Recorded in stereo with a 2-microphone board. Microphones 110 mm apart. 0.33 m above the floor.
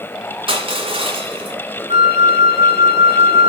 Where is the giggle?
I don't hear a giggle.